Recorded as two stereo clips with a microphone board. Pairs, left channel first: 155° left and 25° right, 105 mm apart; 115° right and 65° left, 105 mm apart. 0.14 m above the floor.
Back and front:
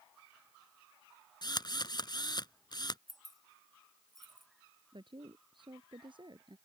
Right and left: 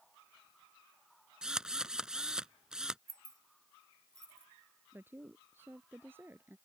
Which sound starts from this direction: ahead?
A woman speaking, at 4.9 s.